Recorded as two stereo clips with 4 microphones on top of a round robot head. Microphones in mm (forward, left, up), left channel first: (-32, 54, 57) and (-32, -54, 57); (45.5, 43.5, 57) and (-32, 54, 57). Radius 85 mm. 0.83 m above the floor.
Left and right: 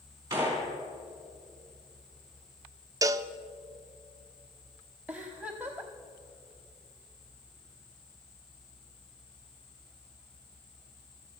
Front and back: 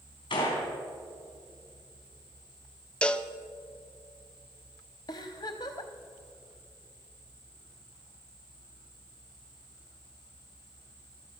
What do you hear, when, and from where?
0.3 s a gunshot: 25° right, 4 m
3.0 s a cowbell: 75° right, 0.6 m
5.1 s a giggle: 15° right, 0.8 m